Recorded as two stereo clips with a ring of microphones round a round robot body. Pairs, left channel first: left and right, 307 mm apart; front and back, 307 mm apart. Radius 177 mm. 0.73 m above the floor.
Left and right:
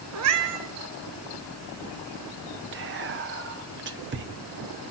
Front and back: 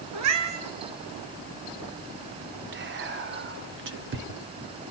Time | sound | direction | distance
0.1 | a cat meowing | 135° right | 1.5 m
2.7 | whispering | 135° right | 1.0 m